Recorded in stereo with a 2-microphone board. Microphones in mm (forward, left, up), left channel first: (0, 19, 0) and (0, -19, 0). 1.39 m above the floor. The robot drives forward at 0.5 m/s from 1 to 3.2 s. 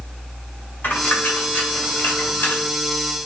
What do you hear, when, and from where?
0.8 s a dropped coin: 60° left (ahead or behind), 2.0 m